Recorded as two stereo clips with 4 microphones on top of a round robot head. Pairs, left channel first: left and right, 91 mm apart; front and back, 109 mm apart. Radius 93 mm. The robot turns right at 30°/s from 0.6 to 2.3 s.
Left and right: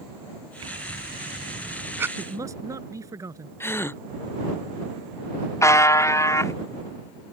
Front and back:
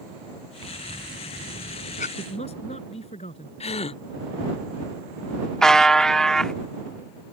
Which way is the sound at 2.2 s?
40° right.